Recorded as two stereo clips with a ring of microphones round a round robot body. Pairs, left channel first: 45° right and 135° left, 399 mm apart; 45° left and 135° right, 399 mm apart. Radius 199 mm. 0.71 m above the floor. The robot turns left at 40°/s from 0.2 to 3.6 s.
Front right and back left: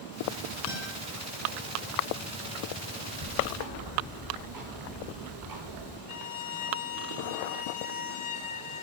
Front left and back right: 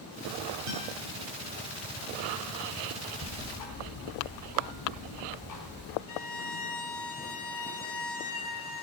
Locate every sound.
0.7 s a guitar: 110° right, 6.5 m; by 0.9 s 120° right, 6.5 m
3.2 s ticking: 105° left, 5 m; by 6.0 s 90° left, 5 m
6.1 s a violin: straight ahead, 2.5 m